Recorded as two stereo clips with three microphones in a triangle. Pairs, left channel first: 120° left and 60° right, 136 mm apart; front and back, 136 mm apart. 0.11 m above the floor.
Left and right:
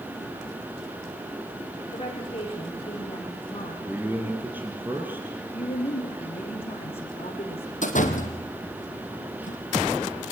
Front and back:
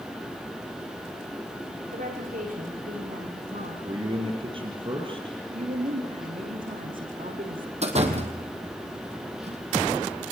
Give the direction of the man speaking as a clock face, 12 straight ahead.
5 o'clock.